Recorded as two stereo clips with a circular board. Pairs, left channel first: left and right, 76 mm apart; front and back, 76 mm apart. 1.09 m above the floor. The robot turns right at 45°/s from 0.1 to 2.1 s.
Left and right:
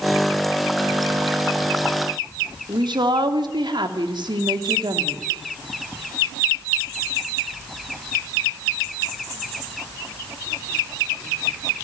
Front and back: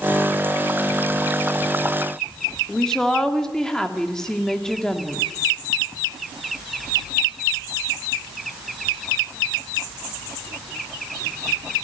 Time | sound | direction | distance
2.7 | a woman speaking | 80° right | 2.5 m